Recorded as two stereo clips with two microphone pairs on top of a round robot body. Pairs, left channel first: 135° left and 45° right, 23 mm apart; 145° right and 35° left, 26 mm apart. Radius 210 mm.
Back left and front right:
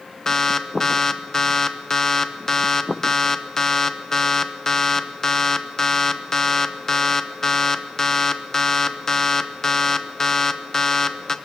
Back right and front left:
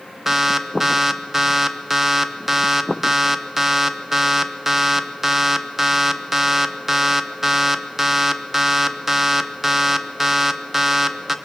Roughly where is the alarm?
Left.